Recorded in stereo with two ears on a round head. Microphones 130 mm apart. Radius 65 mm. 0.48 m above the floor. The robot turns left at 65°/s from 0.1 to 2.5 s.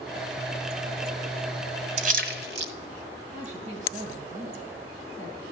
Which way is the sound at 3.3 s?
55° right (ahead or behind).